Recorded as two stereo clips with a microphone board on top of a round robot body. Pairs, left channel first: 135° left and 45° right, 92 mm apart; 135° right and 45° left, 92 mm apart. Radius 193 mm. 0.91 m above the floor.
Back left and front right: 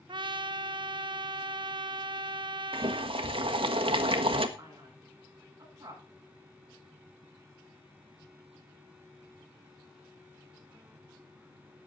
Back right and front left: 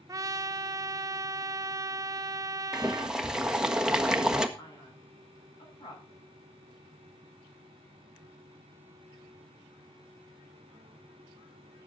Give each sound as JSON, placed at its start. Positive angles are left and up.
{"t": 0.1, "sound": "a trumpet", "azimuth_deg": -10, "distance_m": 0.6}
{"t": 2.7, "sound": "boiling", "azimuth_deg": -40, "distance_m": 1.5}
{"t": 4.6, "sound": "a man speaking", "azimuth_deg": -100, "distance_m": 9.5}